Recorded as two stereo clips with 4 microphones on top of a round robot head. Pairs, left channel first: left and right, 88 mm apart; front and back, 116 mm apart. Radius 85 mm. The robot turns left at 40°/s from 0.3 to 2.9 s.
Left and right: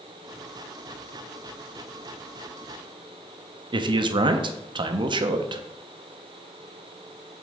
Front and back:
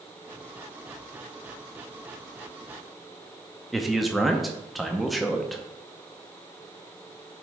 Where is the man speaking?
90° right, 0.7 m.